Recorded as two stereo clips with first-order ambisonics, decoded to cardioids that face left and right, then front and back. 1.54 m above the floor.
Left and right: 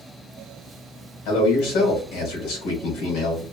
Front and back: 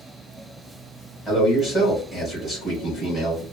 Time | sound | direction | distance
1.2 | a man speaking | 80° left | 2 m